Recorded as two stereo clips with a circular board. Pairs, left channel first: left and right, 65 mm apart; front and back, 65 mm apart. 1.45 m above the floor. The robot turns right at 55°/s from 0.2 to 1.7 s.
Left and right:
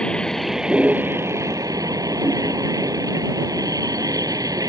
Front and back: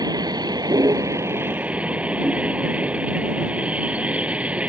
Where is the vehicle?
165° left; by 4.7 s 110° right.